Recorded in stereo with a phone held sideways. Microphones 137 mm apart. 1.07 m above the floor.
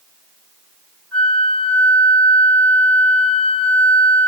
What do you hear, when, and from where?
1.1 s a flute: 5° left (ahead or behind), 3 m